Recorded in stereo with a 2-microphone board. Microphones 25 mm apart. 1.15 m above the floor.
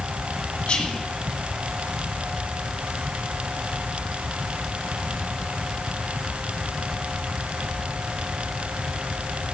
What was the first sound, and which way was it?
Whispering, 55° left (ahead or behind).